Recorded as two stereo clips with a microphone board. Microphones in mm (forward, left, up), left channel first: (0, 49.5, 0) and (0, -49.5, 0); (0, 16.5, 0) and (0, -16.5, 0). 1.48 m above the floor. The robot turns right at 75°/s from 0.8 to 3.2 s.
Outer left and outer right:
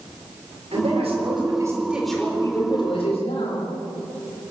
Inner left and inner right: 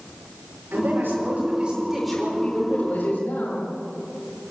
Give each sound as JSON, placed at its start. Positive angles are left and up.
{"t": 0.7, "sound": "a man speaking", "azimuth_deg": -95, "distance_m": 5.5}